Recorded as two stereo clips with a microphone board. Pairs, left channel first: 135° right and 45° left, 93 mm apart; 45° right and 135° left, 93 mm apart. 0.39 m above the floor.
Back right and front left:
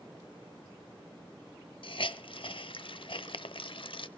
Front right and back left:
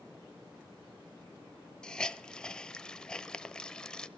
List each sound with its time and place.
1.8 s a hiss: 125° right, 0.6 m